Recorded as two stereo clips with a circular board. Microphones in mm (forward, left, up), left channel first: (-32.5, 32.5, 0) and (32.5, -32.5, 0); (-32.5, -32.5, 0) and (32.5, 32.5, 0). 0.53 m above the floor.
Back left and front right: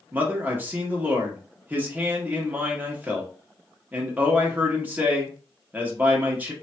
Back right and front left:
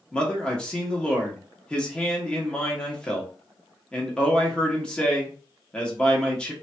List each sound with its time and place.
0.1 s a man speaking: 75° right, 0.9 m